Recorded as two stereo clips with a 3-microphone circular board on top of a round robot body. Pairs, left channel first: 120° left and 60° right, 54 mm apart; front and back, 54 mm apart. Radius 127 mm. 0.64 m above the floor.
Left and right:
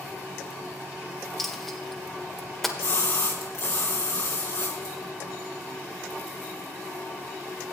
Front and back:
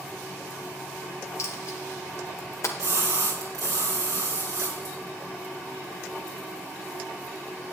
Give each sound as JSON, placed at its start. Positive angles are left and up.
{"t": 1.4, "sound": "a dropped coin", "azimuth_deg": 35, "distance_m": 1.3}
{"t": 2.8, "sound": "a splash", "azimuth_deg": 160, "distance_m": 2.5}